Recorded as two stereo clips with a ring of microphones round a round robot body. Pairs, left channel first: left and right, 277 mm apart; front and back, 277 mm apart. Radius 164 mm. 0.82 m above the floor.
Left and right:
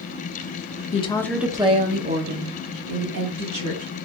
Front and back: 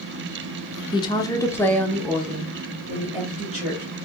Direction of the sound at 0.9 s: 55° left.